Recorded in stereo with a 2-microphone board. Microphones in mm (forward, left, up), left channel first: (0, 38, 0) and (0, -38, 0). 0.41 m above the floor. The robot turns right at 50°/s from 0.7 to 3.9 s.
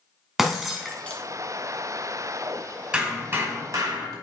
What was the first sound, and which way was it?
Breaking glass, 5° right (ahead or behind).